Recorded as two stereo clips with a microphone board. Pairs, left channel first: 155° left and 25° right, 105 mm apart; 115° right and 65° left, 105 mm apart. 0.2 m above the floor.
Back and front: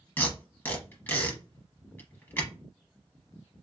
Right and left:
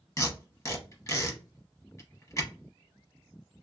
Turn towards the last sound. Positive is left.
turn(degrees=-145)